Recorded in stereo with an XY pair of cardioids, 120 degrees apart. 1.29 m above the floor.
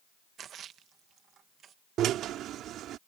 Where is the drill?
70° right.